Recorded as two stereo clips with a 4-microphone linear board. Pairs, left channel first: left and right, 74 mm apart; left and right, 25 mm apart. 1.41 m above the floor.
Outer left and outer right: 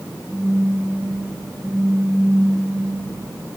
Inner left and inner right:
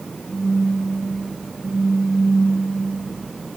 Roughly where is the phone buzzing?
Left.